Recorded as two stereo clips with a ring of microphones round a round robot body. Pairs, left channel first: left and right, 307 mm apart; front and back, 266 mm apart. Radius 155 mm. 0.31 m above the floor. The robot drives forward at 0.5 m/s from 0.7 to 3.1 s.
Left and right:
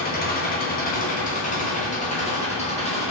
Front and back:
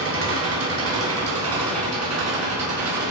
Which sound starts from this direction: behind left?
An engine running, at 0.0 s.